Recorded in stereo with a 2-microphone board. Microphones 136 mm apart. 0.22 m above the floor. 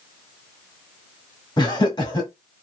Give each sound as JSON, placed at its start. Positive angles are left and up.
{"t": 1.6, "sound": "laughter", "side_deg": 35, "distance_m": 1.5}